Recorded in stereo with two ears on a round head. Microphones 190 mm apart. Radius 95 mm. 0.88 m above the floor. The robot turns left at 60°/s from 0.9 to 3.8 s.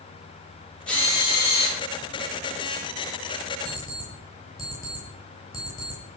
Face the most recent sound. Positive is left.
turn(degrees=15)  # may be behind; listen again after turning